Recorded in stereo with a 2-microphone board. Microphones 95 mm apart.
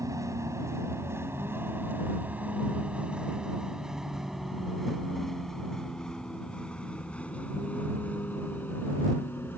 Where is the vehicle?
35° right (ahead or behind); by 9.6 s 25° left (ahead or behind).